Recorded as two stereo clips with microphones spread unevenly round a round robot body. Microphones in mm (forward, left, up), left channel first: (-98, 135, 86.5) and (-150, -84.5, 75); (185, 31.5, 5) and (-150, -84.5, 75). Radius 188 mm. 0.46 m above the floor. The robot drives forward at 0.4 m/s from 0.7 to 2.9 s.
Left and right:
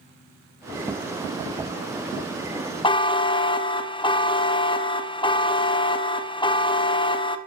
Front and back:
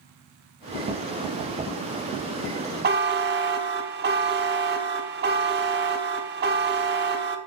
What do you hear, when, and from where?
2.8 s a buzzer: 135° left, 0.9 m; by 7.4 s 140° left, 0.9 m